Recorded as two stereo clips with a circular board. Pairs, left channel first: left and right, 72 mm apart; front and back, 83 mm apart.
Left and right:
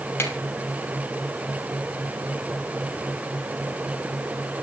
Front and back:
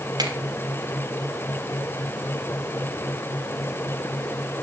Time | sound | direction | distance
0.2 | a finger snap | 145° left | 4.5 m